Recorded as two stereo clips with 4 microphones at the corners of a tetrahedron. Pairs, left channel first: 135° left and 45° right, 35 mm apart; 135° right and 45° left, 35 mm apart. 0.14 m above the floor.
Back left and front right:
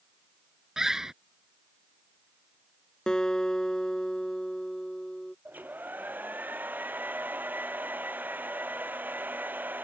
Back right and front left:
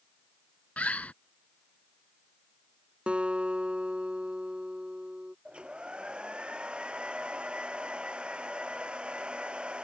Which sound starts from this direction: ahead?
A hair dryer, at 5.5 s.